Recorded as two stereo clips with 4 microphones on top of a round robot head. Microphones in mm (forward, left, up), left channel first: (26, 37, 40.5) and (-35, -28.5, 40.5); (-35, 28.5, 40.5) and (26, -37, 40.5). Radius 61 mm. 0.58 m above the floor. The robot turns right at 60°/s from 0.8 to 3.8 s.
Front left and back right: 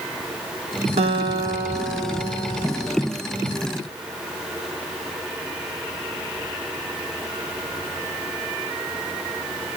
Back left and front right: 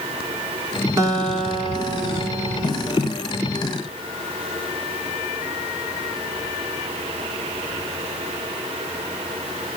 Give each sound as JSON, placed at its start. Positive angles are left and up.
{"t": 1.0, "sound": "a guitar", "azimuth_deg": -105, "distance_m": 1.3}